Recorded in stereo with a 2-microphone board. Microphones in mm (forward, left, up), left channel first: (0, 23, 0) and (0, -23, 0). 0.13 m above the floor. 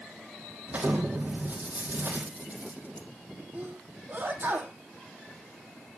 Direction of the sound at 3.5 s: 35° right (ahead or behind).